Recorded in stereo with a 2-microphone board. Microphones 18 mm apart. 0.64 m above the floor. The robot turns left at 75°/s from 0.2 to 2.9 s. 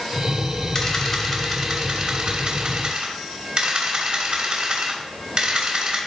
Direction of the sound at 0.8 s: 30° left.